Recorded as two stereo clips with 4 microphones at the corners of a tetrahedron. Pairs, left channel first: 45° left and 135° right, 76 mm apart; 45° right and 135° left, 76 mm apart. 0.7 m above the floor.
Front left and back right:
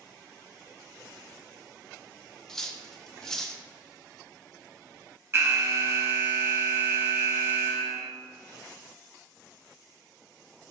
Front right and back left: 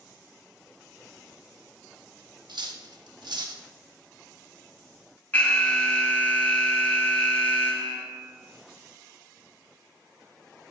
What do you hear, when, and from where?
2.5 s cutlery clinking: 130° left, 0.7 m
5.3 s an alarm: 105° right, 1.4 m